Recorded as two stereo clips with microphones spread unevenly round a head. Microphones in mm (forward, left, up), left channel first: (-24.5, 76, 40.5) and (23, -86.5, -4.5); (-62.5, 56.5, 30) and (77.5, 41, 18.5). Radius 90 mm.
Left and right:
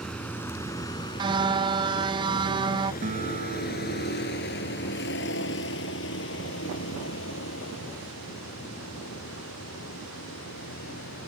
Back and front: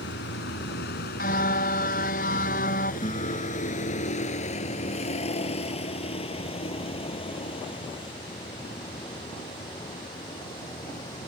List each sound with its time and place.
0.0 s a vehicle: 170° right; by 11.3 s 115° left
1.2 s a car horn: 140° right
3.0 s a guitar: 125° right